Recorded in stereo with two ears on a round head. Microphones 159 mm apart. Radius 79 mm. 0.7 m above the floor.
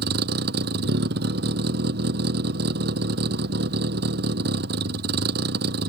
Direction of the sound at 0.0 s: 60° right (ahead or behind).